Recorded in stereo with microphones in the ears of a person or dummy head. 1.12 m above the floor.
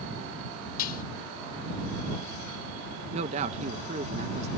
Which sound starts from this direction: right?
A man speaking, at 3.1 s.